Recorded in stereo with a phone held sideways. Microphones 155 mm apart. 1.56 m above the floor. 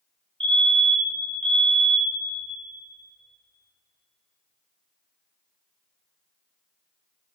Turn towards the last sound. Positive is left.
turn(degrees=-35)  # may be behind; listen again after turning